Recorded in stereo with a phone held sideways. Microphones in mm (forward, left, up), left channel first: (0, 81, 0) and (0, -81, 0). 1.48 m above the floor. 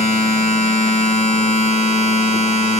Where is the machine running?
45° left (ahead or behind), 6 m.